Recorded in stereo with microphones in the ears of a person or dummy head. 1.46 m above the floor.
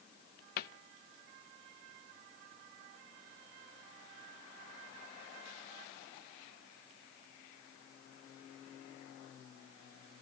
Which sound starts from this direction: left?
A cupboard door, at 0.6 s.